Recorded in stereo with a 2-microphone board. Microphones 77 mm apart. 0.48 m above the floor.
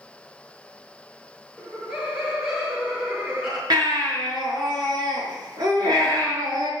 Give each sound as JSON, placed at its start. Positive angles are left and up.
{"t": 1.6, "sound": "laughter", "side_deg": -5, "distance_m": 6.5}
{"t": 3.7, "sound": "a baby crying", "side_deg": -65, "distance_m": 6.0}